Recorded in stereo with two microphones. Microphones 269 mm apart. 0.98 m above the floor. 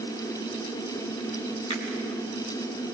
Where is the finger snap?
20° left (ahead or behind), 6 m.